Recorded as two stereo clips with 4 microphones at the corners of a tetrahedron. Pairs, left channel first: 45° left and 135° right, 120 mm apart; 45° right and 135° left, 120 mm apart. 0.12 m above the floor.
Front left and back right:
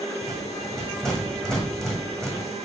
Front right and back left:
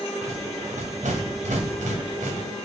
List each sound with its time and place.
0.2 s a rattle: 130° left, 2 m